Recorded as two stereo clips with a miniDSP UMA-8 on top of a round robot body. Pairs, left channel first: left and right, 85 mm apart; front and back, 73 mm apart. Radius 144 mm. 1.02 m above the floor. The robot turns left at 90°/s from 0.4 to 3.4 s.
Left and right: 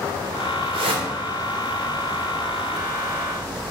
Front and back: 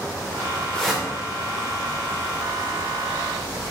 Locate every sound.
0.7 s a whoosh: 80° right, 1.3 m; by 1.1 s 110° right, 1.3 m